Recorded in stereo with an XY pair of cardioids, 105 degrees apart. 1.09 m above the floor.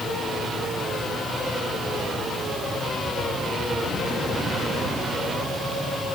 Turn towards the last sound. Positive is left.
No sound to turn to.